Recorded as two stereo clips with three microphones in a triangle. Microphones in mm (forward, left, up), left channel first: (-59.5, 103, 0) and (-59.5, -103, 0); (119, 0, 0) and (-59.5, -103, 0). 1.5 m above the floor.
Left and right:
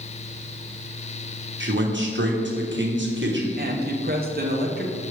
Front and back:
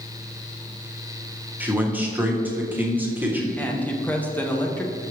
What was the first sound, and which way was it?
A man speaking, 70° right.